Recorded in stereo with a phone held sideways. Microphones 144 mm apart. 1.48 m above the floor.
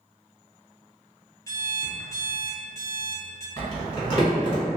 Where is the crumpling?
40° left (ahead or behind), 1.8 m.